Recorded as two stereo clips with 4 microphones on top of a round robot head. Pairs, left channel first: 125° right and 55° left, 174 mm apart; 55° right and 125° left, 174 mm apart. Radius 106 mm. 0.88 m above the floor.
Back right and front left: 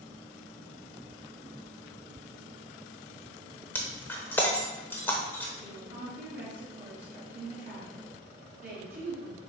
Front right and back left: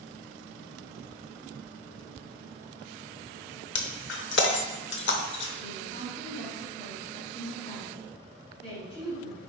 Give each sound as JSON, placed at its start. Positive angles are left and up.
{"t": 3.8, "sound": "breaking glass", "azimuth_deg": -50, "distance_m": 0.7}
{"t": 5.6, "sound": "a woman speaking", "azimuth_deg": 5, "distance_m": 3.5}